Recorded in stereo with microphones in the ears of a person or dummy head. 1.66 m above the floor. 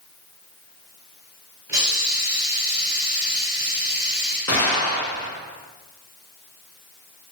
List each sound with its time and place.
1.7 s a hiss: 10° right (ahead or behind), 1.2 m
4.5 s an explosion: 20° left (ahead or behind), 2 m